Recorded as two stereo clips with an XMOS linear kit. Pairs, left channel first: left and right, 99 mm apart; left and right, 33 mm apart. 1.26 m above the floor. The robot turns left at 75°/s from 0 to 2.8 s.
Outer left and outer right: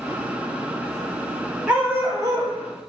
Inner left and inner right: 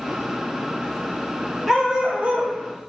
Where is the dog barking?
15° right, 0.9 m; by 2.6 s 80° right, 0.9 m.